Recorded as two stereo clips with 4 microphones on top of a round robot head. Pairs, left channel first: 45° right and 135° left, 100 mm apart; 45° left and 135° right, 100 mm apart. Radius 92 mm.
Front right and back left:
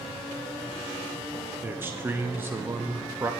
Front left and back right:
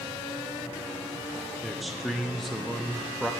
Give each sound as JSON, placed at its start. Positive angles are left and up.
{"t": 1.6, "sound": "a man speaking", "azimuth_deg": 135, "distance_m": 0.8}